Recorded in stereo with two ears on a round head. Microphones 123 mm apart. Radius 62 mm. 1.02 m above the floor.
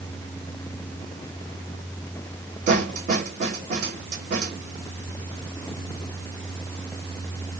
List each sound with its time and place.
2.7 s a snare drum: 60° right (ahead or behind), 1.9 m